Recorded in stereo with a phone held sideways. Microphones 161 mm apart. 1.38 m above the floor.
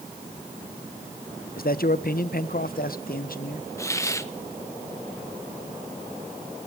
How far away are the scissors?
I don't hear scissors.